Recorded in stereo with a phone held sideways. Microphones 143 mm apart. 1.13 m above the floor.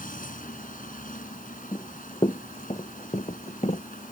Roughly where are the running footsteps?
Left.